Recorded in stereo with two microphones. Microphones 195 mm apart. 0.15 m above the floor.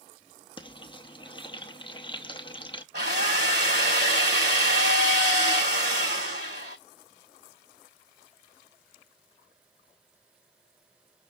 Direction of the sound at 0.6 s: 25° left (ahead or behind).